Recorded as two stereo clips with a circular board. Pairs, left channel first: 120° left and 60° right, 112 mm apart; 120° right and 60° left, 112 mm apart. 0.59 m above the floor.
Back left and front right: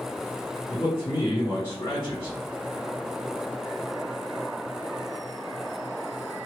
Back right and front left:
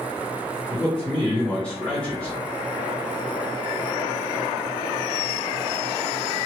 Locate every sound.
0.7 s a man speaking: 165° left, 1.2 m